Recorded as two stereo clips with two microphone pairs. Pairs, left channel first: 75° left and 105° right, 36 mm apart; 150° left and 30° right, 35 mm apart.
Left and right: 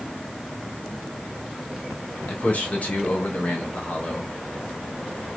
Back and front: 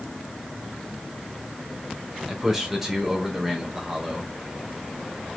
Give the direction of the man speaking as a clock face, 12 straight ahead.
10 o'clock.